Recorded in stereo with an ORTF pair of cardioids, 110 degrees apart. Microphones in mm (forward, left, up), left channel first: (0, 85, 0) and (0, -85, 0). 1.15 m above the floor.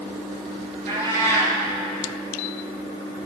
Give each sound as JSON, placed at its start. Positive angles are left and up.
{"t": 0.9, "sound": "a cat meowing", "azimuth_deg": -50, "distance_m": 4.0}